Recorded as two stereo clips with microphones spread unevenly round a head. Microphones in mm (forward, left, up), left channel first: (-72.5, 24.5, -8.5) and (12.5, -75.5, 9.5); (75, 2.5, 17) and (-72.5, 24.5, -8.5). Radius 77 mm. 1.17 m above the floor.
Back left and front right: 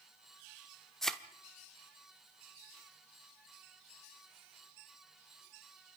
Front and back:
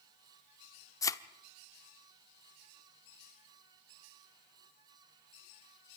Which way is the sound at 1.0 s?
35° left.